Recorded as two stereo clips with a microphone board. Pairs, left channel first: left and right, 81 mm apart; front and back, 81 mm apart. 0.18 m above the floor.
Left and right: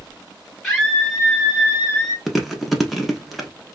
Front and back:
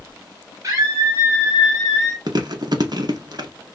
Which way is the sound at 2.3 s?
Straight behind.